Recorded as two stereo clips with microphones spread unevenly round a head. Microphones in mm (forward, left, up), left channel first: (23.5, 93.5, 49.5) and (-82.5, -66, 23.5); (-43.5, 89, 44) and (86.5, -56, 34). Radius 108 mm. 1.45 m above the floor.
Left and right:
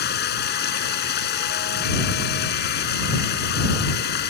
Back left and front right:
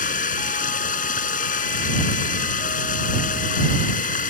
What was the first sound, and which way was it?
Running water, 85° left.